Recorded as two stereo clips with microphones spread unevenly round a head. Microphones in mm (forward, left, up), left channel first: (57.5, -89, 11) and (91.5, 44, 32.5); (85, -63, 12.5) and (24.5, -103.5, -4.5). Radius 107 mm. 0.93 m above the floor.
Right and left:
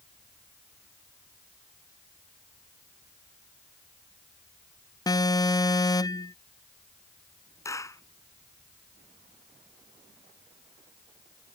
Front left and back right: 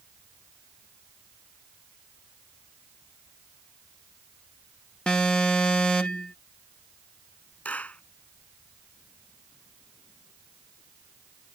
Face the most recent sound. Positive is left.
turn(degrees=-35)